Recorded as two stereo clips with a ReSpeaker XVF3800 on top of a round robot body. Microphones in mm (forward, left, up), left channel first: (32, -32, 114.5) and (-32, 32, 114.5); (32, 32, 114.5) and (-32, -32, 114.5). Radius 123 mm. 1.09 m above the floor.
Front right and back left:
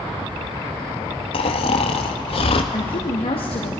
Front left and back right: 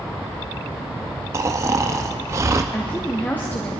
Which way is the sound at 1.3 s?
75° right.